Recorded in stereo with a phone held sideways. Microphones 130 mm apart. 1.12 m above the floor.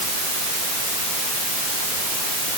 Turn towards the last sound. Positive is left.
No sound to turn to.